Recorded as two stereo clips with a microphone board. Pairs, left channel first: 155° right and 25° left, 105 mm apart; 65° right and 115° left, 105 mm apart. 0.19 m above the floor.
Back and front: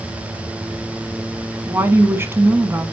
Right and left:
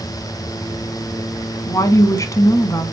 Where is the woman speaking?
30° right, 1.3 m.